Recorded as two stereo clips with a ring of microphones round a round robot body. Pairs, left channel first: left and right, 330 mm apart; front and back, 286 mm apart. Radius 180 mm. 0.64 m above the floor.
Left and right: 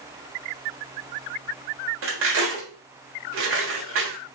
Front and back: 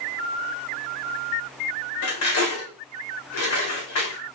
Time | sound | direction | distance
2.0 | cutlery clinking | 40° right | 1.7 m